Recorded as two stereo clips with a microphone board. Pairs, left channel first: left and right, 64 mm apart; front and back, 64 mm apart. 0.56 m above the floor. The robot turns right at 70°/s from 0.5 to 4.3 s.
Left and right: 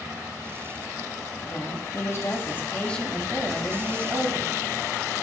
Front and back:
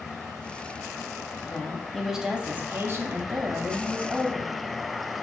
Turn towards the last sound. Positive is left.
turn(degrees=-105)